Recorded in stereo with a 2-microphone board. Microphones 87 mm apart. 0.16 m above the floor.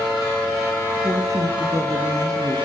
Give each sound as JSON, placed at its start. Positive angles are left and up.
{"t": 1.0, "sound": "a woman speaking", "side_deg": -40, "distance_m": 2.5}